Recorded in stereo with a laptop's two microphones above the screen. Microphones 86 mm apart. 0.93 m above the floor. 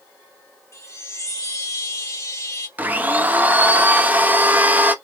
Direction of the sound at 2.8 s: 20° right (ahead or behind).